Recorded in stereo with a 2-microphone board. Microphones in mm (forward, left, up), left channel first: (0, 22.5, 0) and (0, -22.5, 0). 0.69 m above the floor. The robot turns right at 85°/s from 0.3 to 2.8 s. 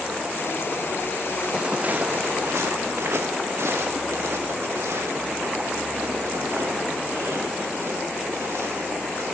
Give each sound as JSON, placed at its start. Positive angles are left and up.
{"t": 1.5, "sound": "footsteps", "side_deg": -10, "distance_m": 1.8}